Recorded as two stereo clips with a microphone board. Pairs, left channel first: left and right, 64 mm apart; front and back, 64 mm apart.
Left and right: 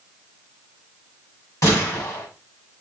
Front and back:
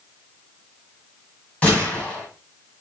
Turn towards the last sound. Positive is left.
turn(degrees=70)